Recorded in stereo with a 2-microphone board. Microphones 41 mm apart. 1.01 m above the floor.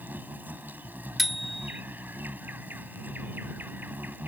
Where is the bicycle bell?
Centre (ahead or behind).